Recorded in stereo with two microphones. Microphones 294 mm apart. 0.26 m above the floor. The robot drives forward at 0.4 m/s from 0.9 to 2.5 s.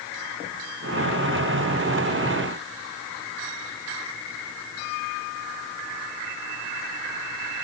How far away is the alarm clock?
I don't hear an alarm clock.